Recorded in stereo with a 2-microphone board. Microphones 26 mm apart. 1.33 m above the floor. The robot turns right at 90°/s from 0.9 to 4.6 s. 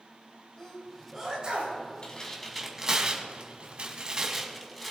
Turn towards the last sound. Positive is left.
turn(degrees=5)  # may be behind; listen again after turning